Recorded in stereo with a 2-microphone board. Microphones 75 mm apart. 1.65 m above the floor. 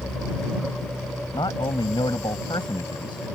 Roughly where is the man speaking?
Left.